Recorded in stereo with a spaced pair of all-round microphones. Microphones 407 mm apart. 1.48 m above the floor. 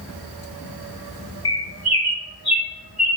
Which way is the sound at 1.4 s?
65° left (ahead or behind).